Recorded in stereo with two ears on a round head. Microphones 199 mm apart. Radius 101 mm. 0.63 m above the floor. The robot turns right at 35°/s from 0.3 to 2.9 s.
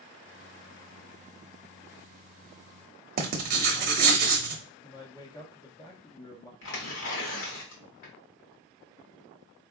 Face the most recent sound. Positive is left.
turn(degrees=60)  # may be behind; listen again after turning